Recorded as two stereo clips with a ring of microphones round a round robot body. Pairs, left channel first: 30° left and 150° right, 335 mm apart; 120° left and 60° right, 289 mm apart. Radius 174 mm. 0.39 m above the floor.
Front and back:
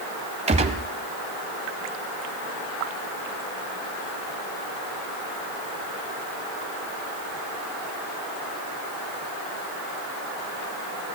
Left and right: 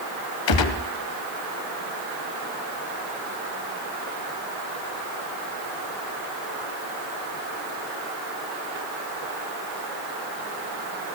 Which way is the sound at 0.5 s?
135° left.